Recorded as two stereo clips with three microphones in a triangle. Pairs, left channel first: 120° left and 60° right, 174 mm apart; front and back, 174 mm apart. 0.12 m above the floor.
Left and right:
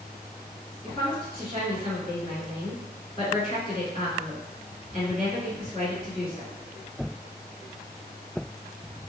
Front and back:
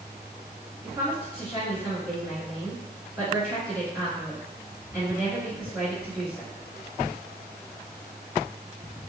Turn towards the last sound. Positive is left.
turn(degrees=135)